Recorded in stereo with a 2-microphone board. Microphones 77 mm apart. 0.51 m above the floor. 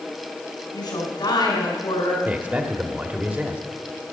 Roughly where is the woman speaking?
Left.